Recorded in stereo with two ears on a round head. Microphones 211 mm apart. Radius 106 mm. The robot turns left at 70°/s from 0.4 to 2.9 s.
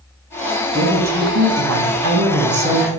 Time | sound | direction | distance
0.7 | a woman speaking | 20° right | 1.1 m